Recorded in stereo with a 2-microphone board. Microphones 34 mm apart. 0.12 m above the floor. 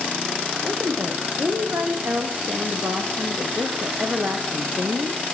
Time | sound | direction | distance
0.6 | a woman speaking | 60° right (ahead or behind) | 6 m